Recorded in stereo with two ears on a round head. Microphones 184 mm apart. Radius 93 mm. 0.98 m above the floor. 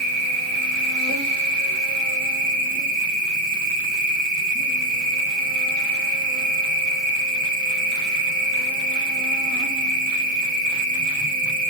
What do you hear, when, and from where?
0.0 s an insect: 40° right (ahead or behind), 1.8 m